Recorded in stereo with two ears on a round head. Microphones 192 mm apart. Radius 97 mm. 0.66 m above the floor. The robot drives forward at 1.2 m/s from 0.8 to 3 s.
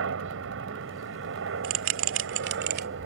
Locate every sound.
0.0 s a helicopter: 65° right (ahead or behind); by 3.1 s 60° right (ahead or behind)
1.6 s a bell: 65° right (ahead or behind); by 2.9 s 50° right (ahead or behind)